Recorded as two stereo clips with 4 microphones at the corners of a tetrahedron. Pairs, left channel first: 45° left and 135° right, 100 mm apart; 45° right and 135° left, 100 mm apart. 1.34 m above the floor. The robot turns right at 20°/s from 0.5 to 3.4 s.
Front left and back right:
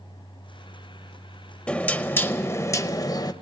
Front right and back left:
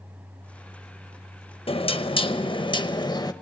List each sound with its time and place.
1.7 s knocking: 30° right, 0.7 m; by 3.3 s straight ahead, 0.7 m